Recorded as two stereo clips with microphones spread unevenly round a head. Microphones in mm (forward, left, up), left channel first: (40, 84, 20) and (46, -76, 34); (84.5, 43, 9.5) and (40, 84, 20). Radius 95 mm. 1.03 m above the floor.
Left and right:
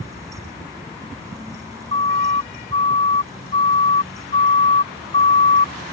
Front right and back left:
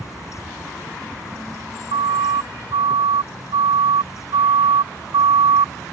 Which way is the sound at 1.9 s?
160° left.